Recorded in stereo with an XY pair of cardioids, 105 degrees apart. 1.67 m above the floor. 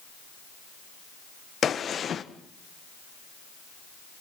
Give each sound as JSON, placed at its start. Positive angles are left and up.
{"t": 1.6, "sound": "a gunshot", "azimuth_deg": 45, "distance_m": 1.4}